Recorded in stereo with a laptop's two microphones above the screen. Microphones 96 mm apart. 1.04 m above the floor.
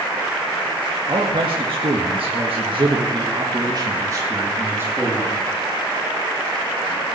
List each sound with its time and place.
1.1 s a man speaking: 50° right (ahead or behind), 2 m; by 5.4 s 15° right (ahead or behind), 3 m